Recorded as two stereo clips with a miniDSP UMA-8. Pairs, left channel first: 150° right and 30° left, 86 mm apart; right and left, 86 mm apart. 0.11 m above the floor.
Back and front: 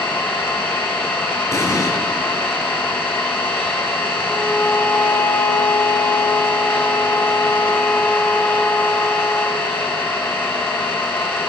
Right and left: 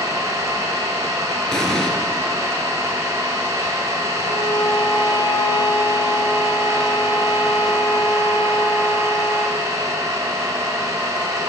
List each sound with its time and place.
0.0 s an engine running: 145° left, 1.5 m
1.5 s an explosion: 170° right, 1.0 m
4.2 s a violin: 80° right, 0.8 m